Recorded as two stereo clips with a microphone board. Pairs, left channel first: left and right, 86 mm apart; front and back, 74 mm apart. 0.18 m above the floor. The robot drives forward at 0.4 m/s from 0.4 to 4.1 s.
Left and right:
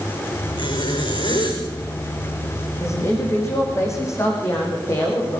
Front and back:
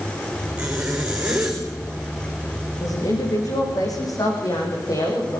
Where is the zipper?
105° left, 6 m; by 1.6 s 110° left, 6.5 m.